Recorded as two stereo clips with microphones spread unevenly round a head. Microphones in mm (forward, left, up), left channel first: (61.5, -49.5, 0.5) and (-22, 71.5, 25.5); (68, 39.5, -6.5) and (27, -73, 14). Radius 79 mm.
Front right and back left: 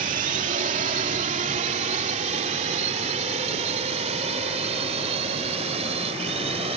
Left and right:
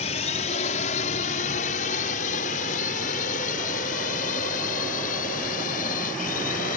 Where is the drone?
95° left; by 6.8 s 75° left.